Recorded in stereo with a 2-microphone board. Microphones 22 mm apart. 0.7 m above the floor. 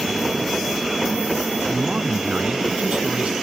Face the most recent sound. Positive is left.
turn(degrees=-80)